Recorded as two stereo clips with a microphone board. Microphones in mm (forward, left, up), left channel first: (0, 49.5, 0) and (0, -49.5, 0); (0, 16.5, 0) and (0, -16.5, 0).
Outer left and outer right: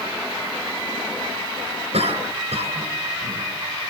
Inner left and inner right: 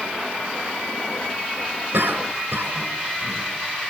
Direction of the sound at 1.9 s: 85° right.